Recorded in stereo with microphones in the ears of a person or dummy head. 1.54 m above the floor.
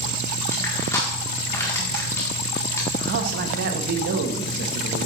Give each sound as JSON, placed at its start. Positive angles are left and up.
{"t": 0.5, "sound": "crushing", "side_deg": 20, "distance_m": 1.6}
{"t": 3.0, "sound": "a man speaking", "side_deg": -50, "distance_m": 0.9}